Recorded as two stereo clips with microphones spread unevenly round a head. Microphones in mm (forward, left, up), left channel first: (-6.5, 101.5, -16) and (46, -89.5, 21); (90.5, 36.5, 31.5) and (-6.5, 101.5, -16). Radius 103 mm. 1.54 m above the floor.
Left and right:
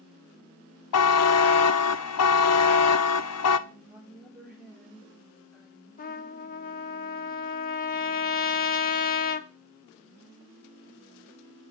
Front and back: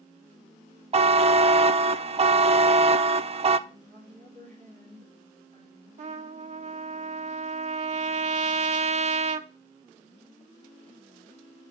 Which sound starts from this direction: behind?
A woman speaking, at 3.7 s.